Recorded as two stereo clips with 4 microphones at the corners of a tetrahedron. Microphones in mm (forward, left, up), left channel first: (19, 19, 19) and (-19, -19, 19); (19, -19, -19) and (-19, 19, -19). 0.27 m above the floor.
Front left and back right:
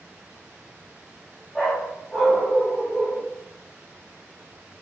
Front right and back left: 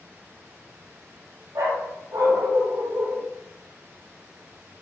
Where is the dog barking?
120° left, 4 m; by 3.3 s 110° left, 2.5 m.